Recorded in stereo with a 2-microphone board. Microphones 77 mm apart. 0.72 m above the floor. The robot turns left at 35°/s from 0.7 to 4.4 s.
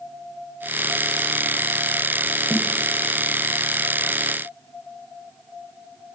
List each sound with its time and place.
2.5 s a snare drum: 25° right (ahead or behind), 4 m; by 2.7 s 30° right (ahead or behind), 4 m